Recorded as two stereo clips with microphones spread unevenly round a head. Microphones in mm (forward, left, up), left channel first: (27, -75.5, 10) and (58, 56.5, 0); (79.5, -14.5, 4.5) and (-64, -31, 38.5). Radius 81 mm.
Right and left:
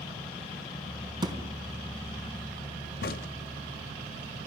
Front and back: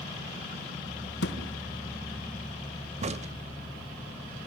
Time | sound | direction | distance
1.2 | a thud | 15° left | 3 m
3.0 | a crack | 135° right | 0.8 m